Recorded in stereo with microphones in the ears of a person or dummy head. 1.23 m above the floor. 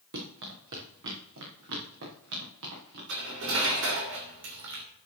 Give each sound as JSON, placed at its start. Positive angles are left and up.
{"t": 0.1, "sound": "running footsteps", "side_deg": -65, "distance_m": 5.0}
{"t": 3.1, "sound": "cutlery clinking", "side_deg": -75, "distance_m": 2.5}